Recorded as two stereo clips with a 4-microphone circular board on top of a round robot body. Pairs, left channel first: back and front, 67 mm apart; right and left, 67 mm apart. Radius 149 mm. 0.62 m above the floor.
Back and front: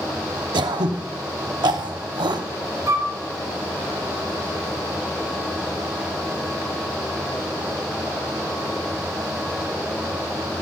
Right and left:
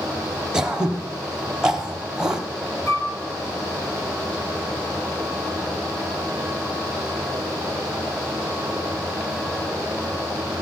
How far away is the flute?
About 4 m.